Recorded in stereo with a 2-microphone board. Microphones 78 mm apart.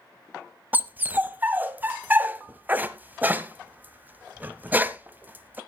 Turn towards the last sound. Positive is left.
turn(degrees=-25)  # may be behind; listen again after turning